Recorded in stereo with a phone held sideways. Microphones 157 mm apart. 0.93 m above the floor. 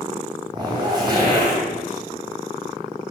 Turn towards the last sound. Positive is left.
turn(degrees=-25)  # may be behind; listen again after turning